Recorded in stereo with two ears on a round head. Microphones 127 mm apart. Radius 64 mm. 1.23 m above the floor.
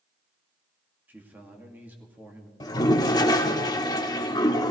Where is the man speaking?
15° right (ahead or behind), 2 m.